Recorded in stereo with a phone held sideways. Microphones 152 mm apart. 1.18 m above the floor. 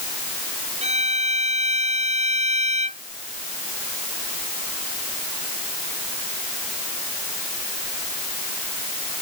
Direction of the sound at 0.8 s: 45° right (ahead or behind).